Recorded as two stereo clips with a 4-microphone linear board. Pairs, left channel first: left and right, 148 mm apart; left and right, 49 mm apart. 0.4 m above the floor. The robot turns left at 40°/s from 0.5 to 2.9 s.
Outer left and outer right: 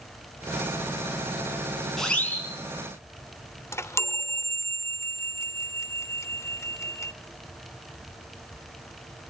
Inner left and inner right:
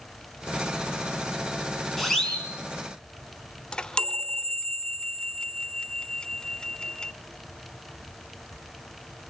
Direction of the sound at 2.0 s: Centre (ahead or behind).